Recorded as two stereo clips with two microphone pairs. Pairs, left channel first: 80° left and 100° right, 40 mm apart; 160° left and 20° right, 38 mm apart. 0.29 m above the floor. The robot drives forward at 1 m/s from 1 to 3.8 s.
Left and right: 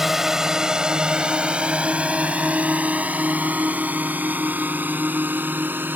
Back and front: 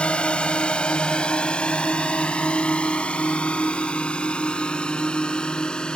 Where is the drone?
175° right; by 6.0 s 130° right.